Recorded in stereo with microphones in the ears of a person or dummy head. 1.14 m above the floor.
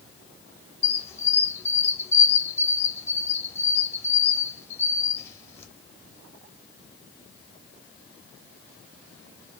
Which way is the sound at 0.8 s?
15° left (ahead or behind).